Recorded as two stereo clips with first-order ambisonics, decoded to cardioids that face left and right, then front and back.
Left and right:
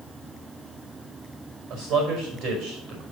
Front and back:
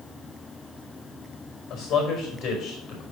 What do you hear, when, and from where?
1.7 s a man speaking: 55° right, 4.5 m